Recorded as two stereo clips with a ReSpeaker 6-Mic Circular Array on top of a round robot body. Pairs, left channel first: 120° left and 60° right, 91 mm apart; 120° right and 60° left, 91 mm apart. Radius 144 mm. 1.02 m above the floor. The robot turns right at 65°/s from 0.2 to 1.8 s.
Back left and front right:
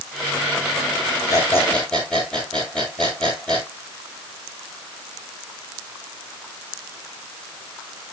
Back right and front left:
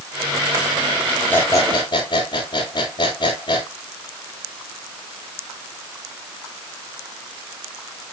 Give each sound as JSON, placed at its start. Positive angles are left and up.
{"t": 1.3, "sound": "a squeak", "azimuth_deg": 170, "distance_m": 7.0}